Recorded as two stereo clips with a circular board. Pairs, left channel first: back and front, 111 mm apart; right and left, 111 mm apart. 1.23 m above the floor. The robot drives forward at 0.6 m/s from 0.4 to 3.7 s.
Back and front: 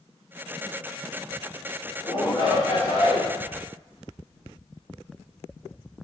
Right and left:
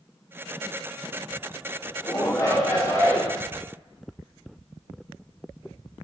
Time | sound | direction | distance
2.0 | a shout | 145° right | 2.0 m